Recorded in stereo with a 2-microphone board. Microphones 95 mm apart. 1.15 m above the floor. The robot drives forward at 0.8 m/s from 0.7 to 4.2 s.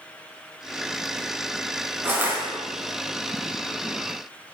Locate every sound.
2.0 s crushing: 25° right (ahead or behind), 6 m; by 2.4 s 20° right (ahead or behind), 6 m